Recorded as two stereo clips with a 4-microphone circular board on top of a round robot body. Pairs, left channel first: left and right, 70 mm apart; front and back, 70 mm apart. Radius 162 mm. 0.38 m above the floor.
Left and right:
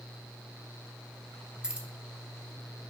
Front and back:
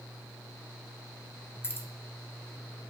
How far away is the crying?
I don't hear crying.